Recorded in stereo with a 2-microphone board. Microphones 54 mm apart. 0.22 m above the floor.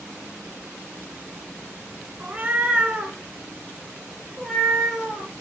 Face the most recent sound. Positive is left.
turn(degrees=10)  # may be behind; listen again after turning